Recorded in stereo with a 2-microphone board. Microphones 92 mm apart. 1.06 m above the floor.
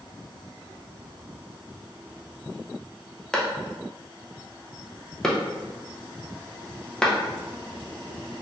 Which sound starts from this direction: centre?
A clap, at 3.3 s.